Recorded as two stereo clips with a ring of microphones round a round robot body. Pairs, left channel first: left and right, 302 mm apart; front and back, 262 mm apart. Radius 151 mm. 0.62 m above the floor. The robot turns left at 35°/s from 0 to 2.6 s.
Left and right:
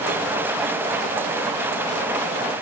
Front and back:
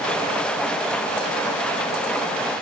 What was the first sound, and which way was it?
Only background noise.